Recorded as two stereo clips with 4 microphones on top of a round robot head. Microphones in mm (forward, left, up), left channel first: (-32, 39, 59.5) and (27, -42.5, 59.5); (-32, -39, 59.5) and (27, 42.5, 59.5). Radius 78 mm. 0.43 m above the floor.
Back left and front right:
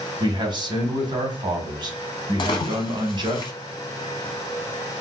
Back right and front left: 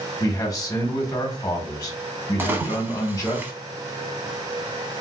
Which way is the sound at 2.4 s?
115° left.